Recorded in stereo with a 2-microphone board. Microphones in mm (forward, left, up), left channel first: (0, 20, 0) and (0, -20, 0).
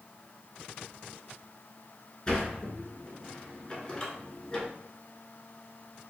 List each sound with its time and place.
2.3 s a sliding door: 20° left (ahead or behind), 1.1 m